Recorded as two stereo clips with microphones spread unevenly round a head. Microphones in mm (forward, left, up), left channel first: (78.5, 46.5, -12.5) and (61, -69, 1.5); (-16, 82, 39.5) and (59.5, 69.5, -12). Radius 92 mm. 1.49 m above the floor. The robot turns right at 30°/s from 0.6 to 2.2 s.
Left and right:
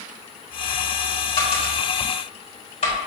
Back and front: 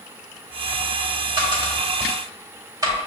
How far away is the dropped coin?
About 2.0 m.